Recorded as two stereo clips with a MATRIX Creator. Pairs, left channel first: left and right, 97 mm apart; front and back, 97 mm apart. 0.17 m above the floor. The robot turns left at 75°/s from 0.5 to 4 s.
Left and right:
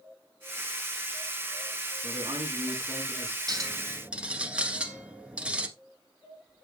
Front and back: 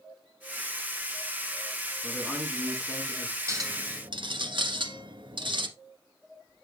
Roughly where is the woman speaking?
Right.